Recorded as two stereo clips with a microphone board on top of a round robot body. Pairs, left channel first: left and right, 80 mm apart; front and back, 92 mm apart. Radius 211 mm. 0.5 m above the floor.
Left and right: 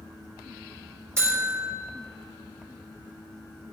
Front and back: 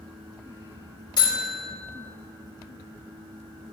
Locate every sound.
1.2 s a buzzer: 35° right, 4 m